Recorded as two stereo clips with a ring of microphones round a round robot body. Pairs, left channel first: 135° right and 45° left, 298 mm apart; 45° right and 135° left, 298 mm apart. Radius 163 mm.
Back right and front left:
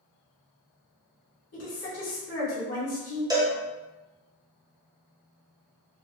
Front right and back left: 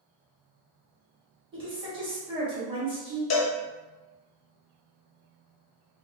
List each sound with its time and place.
1.5 s a woman speaking: 155° right, 1.5 m
3.3 s a cowbell: 30° right, 0.7 m